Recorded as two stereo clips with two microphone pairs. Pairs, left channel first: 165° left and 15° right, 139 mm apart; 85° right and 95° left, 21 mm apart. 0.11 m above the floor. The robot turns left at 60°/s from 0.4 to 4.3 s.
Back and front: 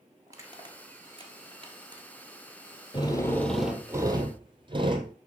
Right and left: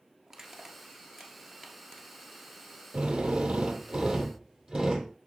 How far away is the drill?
About 1.2 m.